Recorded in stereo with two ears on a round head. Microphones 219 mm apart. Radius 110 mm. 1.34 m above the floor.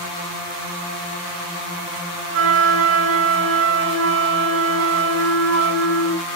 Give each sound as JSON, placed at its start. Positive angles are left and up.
{"t": 2.3, "sound": "a flute", "side_deg": -50, "distance_m": 2.5}